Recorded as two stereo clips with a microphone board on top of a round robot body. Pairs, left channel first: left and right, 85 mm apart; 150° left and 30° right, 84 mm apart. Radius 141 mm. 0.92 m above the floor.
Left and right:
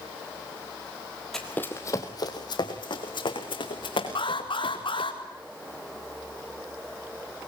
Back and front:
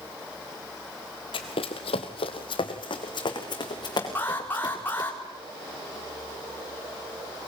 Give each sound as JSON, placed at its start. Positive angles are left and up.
{"t": 1.3, "sound": "running footsteps", "azimuth_deg": 175, "distance_m": 1.5}
{"t": 4.2, "sound": "an alarm", "azimuth_deg": 85, "distance_m": 4.5}